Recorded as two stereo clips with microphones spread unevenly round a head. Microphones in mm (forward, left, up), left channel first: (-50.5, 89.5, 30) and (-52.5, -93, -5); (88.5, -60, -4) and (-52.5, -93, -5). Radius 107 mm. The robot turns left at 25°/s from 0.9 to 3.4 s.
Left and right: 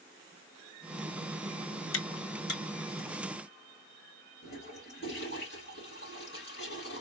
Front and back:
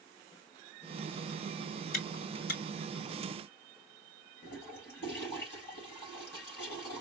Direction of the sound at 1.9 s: 60° left.